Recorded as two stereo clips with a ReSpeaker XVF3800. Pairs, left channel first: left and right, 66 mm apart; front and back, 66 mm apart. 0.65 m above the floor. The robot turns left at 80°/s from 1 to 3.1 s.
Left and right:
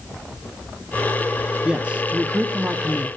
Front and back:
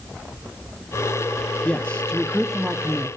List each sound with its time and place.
1.6 s a man speaking: 30° right, 1.0 m; by 3.1 s 145° right, 1.0 m